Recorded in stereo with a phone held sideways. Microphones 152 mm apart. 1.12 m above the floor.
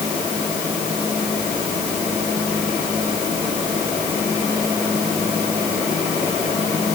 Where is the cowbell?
No cowbell in this recording.